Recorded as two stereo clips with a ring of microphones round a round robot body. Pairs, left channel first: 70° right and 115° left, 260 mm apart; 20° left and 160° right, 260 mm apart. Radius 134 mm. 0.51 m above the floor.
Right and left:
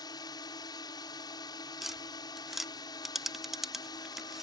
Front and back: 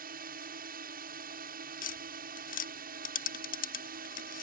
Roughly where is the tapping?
Ahead left.